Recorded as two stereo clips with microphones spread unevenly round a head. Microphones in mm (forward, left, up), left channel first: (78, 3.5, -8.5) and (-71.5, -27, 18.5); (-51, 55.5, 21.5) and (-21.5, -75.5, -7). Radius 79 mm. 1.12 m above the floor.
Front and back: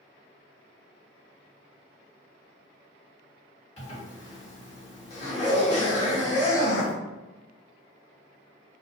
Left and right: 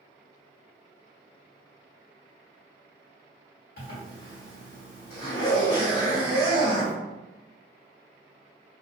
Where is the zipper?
65° left, 1.3 m.